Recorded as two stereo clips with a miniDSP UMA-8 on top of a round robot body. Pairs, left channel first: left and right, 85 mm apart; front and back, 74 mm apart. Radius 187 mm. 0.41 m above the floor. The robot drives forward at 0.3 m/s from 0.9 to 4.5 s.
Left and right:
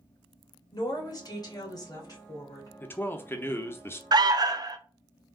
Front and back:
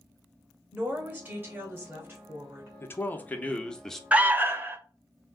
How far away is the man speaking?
About 0.9 m.